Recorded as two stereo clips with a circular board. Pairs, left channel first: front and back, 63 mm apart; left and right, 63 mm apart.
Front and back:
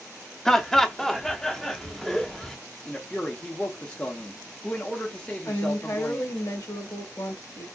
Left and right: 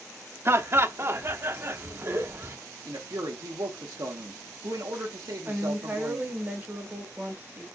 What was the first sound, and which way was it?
Laughter, 80° right.